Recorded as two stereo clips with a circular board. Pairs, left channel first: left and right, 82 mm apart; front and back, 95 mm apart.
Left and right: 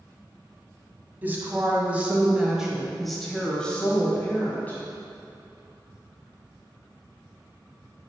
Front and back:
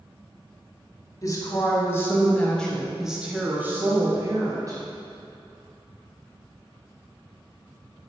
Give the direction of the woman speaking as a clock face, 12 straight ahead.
1 o'clock.